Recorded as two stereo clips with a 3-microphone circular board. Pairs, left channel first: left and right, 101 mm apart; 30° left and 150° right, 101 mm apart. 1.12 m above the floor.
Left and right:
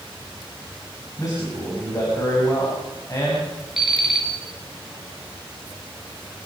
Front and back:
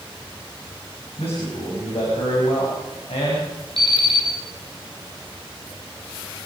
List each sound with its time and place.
1.2 s a man speaking: 35° left, 6 m
3.8 s an alarm clock: 5° right, 7.5 m